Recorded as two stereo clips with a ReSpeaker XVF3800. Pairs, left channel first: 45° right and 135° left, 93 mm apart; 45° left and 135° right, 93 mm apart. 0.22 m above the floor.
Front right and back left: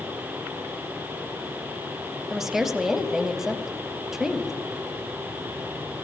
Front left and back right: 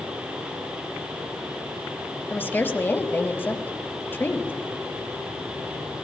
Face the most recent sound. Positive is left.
turn(degrees=55)